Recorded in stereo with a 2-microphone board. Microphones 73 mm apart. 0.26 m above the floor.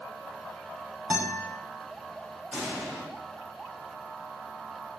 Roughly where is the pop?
Right.